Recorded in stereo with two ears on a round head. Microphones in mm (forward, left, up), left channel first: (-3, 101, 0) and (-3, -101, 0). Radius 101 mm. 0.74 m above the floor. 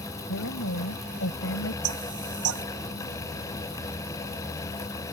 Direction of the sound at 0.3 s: 60° left (ahead or behind).